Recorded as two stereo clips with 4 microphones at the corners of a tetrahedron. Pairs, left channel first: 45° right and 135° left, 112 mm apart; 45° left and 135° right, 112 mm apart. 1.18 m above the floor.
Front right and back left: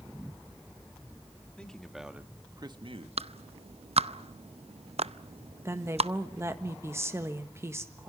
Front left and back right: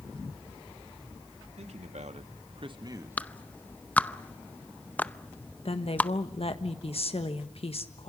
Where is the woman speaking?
70° left, 1.6 m.